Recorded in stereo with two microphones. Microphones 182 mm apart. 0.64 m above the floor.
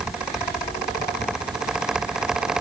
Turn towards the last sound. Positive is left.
No sound to turn to.